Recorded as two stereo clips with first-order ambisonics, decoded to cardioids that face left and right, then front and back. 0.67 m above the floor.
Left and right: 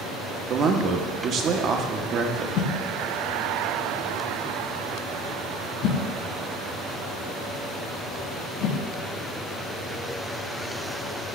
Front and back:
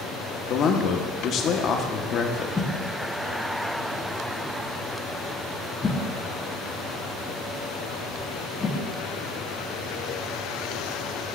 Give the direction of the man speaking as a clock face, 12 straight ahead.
1 o'clock.